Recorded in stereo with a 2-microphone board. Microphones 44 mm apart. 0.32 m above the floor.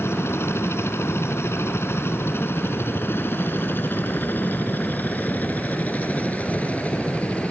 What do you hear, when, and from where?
0.0 s a helicopter: 65° left (ahead or behind); by 7.5 s 25° left (ahead or behind)